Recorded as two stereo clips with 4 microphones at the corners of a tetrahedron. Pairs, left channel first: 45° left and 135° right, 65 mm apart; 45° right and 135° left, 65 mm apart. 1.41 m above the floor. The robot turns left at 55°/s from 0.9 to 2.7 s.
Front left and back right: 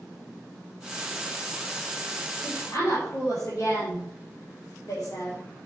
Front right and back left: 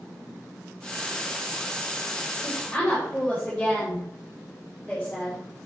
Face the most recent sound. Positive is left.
turn(degrees=40)